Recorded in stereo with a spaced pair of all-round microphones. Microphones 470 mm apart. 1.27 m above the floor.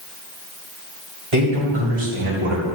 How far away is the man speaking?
About 2.5 m.